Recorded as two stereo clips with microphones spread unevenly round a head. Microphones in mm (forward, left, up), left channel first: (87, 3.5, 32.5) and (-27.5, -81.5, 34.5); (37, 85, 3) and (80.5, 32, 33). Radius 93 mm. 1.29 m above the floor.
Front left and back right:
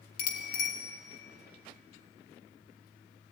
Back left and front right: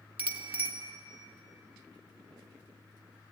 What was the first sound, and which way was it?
A bicycle bell, 10° left.